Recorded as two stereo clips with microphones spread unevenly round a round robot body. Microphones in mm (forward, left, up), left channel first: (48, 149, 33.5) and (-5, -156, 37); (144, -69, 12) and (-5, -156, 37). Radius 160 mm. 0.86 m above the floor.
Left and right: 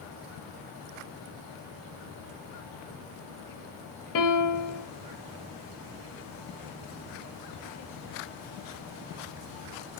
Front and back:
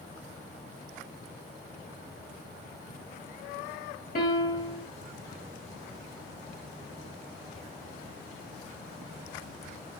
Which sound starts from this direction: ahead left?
A piano, at 4.2 s.